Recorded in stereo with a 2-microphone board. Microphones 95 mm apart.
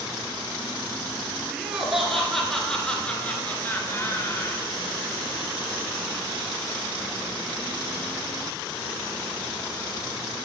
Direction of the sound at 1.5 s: 5° right (ahead or behind).